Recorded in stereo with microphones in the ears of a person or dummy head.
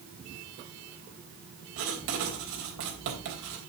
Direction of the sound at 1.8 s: 70° right (ahead or behind).